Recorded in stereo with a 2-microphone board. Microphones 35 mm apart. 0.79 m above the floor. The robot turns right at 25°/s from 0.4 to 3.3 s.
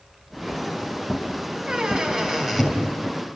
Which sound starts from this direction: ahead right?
A squeak, at 1.7 s.